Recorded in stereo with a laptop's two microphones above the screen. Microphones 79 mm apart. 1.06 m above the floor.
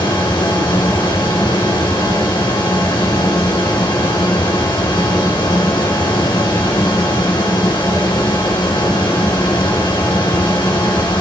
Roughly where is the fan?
Left.